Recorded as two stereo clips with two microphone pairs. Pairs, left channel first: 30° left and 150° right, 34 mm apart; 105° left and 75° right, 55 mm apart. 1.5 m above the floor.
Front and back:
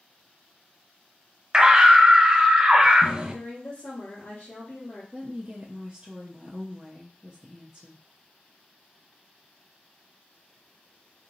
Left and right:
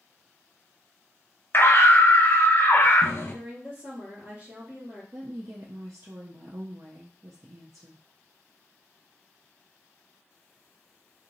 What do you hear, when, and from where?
1.5 s a scream: 145° left, 0.8 m
3.3 s a woman speaking: 25° right, 2 m
5.1 s a woman speaking: 80° right, 0.5 m